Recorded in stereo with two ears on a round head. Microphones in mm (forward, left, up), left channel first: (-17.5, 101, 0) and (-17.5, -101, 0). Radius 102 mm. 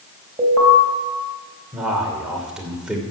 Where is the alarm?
20° right (ahead or behind), 3.5 m.